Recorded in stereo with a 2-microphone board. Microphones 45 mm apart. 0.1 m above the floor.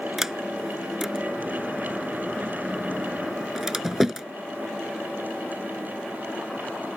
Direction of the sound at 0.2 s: 10° right (ahead or behind).